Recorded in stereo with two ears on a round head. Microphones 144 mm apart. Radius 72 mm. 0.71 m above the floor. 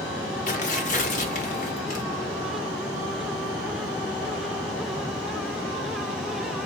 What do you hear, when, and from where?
0.5 s tearing paper: 50° left (ahead or behind), 0.9 m